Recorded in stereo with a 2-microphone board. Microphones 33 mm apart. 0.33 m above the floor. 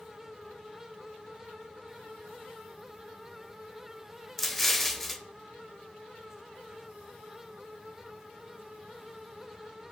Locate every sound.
4.4 s an explosion: 5° left (ahead or behind), 0.5 m